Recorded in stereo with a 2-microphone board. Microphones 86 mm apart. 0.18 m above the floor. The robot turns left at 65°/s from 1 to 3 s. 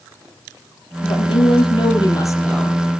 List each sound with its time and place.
1.0 s a woman speaking: 120° left, 4 m; by 3.0 s 10° right, 4 m